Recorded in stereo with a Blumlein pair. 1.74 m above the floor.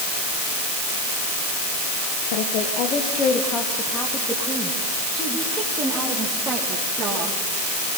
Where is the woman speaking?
50° left, 1.4 m; by 7.4 s 15° right, 4 m.